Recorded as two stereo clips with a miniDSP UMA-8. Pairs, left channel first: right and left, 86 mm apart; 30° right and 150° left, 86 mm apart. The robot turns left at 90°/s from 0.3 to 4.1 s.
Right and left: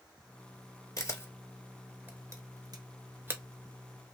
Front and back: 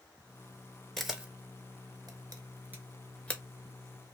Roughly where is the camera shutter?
Behind right.